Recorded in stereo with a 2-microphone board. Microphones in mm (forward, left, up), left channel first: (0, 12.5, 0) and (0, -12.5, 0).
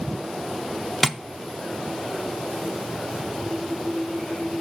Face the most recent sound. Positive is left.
turn(degrees=10)  # may be behind; listen again after turning